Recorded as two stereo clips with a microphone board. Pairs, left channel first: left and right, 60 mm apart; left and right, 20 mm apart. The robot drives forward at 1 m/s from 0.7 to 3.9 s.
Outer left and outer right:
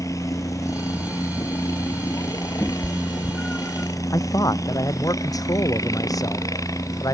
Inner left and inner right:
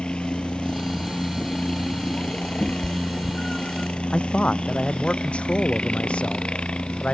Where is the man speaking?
80° left.